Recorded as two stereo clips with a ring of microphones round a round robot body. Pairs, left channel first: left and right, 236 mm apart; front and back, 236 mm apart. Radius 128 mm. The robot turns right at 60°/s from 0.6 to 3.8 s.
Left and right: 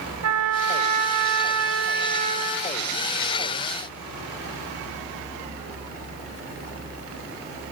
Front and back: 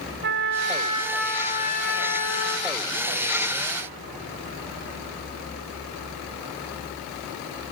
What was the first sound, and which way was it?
A trumpet, 125° right.